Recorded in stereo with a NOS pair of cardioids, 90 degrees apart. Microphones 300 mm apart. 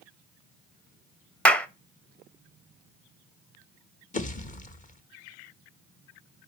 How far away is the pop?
About 1.1 m.